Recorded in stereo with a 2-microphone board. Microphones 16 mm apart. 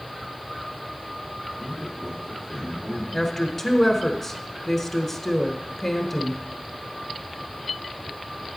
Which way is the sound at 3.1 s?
25° left (ahead or behind).